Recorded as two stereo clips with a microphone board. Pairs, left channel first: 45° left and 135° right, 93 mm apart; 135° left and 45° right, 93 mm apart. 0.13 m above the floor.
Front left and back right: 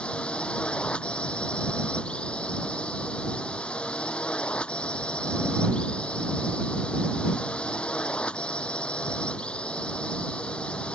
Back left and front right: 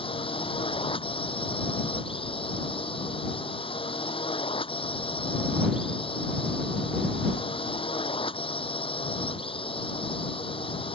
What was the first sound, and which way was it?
A drone, 125° left.